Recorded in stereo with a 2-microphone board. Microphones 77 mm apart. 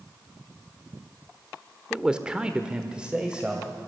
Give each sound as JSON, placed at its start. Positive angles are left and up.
{"t": 1.9, "sound": "a man speaking", "side_deg": -10, "distance_m": 1.4}